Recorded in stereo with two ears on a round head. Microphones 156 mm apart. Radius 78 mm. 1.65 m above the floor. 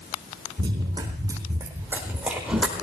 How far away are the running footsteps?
About 4.5 m.